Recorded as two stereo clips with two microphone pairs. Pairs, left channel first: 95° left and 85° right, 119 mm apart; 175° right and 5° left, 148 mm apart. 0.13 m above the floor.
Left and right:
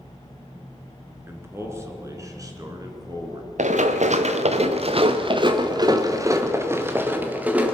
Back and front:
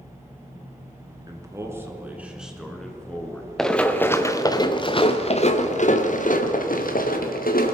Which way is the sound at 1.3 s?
30° right.